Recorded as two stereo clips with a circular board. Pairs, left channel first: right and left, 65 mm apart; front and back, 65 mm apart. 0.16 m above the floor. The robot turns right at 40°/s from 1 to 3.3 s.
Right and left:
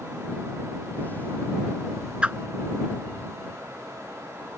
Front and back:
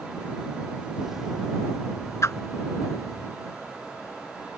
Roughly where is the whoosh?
Ahead.